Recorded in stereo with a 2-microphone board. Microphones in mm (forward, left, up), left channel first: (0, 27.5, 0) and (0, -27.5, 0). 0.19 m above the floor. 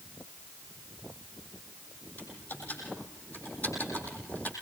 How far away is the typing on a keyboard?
About 7.5 m.